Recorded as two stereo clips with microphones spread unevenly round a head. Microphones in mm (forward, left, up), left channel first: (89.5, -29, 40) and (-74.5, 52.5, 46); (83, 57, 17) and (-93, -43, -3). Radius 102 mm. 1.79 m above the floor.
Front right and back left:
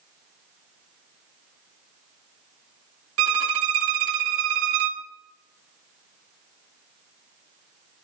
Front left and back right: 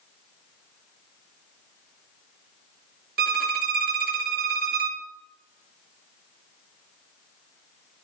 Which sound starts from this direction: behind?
A violin, at 3.2 s.